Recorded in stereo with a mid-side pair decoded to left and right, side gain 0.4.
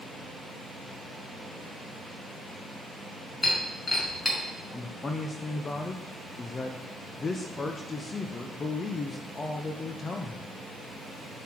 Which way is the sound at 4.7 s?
40° left.